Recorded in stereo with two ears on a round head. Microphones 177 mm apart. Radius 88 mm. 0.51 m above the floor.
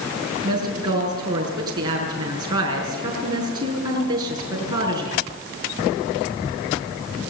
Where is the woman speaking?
20° right (ahead or behind), 6 m.